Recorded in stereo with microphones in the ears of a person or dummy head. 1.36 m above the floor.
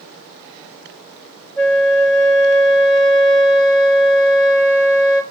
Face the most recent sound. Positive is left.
turn(degrees=10)  # may be behind; listen again after turning